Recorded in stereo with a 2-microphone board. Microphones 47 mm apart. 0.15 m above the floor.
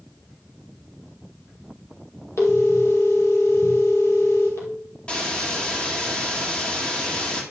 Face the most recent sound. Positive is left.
turn(degrees=25)  # may be behind; listen again after turning